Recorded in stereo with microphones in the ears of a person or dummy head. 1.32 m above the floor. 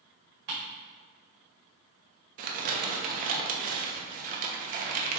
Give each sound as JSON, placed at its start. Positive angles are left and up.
{"t": 0.5, "sound": "ticking", "side_deg": -55, "distance_m": 1.8}
{"t": 2.4, "sound": "crumpling", "side_deg": -45, "distance_m": 0.7}